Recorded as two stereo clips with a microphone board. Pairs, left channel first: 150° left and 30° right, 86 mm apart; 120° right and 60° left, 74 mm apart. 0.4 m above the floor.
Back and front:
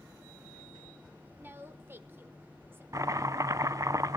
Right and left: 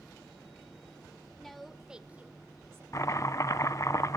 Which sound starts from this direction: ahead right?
A woman speaking, at 1.4 s.